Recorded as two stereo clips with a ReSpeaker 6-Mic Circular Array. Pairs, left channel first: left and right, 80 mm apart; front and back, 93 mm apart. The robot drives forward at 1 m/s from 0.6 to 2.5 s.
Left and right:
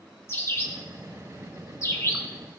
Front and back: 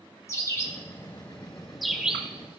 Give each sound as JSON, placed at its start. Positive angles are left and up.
{"t": 0.3, "sound": "a bird", "azimuth_deg": 45, "distance_m": 2.0}